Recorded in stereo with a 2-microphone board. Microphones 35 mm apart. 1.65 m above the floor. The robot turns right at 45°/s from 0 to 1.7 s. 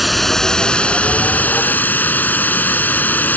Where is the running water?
5° right; by 3.4 s 75° left.